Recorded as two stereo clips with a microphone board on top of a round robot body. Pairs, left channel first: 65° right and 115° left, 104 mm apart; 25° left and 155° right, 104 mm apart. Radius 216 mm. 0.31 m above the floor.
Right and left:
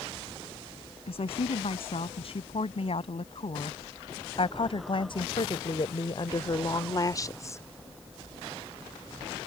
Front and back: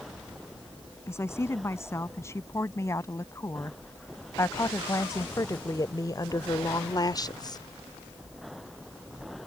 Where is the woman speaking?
40° right; by 7.6 s 10° right.